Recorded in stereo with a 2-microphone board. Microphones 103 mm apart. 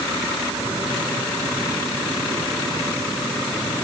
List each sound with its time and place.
Only background noise.